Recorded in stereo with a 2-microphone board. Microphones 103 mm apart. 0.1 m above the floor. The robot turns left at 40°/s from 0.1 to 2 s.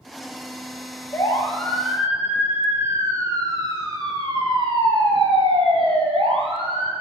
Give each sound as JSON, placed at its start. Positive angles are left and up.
{"t": 1.1, "sound": "a siren", "side_deg": 25, "distance_m": 3.0}